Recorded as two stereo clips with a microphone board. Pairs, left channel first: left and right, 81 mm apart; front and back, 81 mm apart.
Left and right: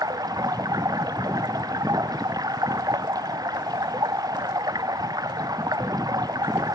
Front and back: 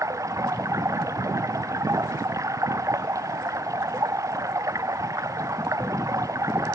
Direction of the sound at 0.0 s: 130° right.